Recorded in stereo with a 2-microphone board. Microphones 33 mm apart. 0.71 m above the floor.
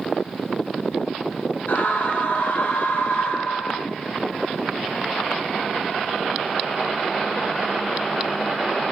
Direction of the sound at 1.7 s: 60° left (ahead or behind).